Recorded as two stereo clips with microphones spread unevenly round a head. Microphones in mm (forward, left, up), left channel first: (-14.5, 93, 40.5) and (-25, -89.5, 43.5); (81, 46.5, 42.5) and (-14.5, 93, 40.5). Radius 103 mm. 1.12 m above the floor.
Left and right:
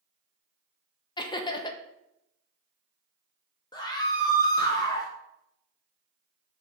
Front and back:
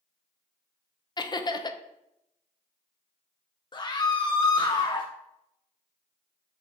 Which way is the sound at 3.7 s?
20° left.